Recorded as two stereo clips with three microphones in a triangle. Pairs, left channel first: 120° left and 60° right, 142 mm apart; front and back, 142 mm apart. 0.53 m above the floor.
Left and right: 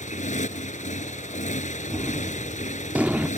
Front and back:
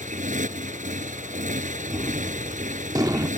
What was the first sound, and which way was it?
A motorcycle, 150° left.